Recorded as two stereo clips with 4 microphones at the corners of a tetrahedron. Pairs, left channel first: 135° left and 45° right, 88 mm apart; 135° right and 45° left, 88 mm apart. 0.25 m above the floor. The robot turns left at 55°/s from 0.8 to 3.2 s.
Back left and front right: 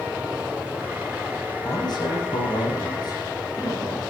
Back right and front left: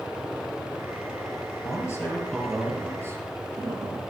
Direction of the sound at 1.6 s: Straight behind.